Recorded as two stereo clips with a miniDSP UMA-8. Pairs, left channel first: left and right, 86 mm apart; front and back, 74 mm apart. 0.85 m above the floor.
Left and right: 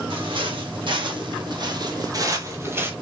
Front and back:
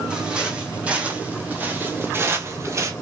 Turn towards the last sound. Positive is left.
turn(degrees=-150)